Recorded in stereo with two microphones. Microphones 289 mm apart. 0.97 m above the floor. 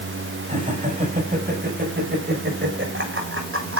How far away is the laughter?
About 8 m.